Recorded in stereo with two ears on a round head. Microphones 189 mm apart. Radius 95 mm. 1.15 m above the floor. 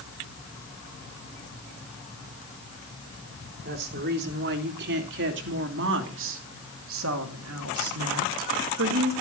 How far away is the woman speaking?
About 4 m.